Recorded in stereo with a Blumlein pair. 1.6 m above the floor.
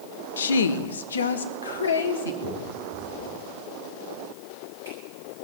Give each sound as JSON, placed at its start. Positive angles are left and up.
{"t": 0.4, "sound": "a woman speaking", "azimuth_deg": 65, "distance_m": 0.6}
{"t": 2.4, "sound": "a finger snap", "azimuth_deg": -65, "distance_m": 10.0}